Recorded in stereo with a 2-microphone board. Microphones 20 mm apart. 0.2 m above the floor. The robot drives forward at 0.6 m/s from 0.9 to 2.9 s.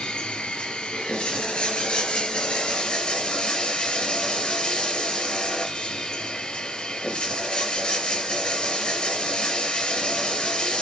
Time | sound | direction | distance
0.0 | running water | 70° left (ahead or behind) | 3.5 m